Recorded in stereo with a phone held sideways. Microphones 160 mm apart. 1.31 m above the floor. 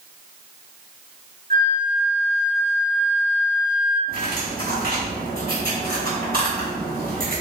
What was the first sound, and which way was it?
A flute, 60° right (ahead or behind).